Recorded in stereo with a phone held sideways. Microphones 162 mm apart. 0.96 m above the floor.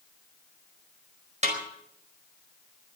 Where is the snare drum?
50° right (ahead or behind), 4.5 m.